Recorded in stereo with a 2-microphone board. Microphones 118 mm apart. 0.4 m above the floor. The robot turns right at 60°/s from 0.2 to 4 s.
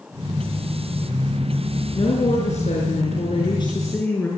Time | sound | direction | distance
1.9 | a woman speaking | 40° left | 6 m